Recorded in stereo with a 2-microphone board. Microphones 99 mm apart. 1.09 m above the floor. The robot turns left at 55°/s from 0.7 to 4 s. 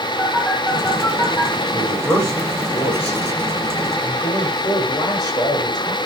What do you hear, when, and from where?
0.2 s a phone buzzing: 5° right (ahead or behind), 7.5 m; by 1.5 s 40° left (ahead or behind), 7.5 m
1.7 s a man speaking: 170° left, 6.5 m; by 6.0 s 45° left, 6.5 m